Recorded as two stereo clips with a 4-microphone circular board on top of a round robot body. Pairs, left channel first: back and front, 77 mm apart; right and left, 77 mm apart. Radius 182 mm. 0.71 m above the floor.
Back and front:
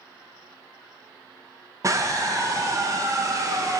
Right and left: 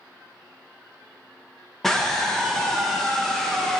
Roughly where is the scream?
Ahead.